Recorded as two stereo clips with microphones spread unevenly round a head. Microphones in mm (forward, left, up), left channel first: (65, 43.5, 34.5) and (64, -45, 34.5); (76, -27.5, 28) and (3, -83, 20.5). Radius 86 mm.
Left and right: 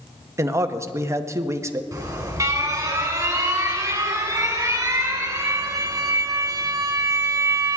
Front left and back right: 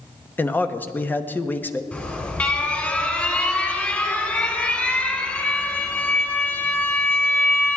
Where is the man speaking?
35° right, 1.2 m.